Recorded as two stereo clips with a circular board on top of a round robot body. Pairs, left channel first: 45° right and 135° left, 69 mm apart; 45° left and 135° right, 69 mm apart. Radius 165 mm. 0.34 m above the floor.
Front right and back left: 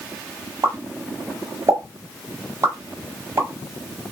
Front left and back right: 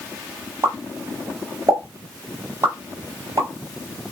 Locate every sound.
0.6 s a pop: straight behind, 1.5 m